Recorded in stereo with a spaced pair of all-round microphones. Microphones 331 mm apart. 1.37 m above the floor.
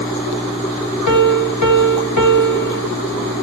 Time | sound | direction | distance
1.1 | a piano | 65° left (ahead or behind) | 1.4 m